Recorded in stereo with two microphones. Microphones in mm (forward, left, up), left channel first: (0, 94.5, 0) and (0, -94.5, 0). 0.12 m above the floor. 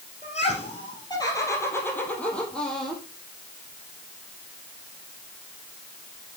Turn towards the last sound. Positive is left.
turn(degrees=0)  # may be behind; listen again after turning